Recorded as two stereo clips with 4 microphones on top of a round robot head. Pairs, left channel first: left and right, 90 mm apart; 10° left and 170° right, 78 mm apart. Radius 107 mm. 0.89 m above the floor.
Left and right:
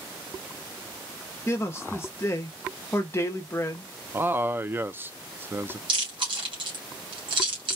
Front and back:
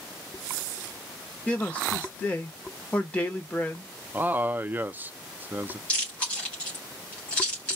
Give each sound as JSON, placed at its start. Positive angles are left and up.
{"t": 1.5, "sound": "a man speaking", "azimuth_deg": 65, "distance_m": 0.9}
{"t": 4.1, "sound": "a man speaking", "azimuth_deg": -130, "distance_m": 0.6}
{"t": 5.9, "sound": "chewing", "azimuth_deg": -65, "distance_m": 2.5}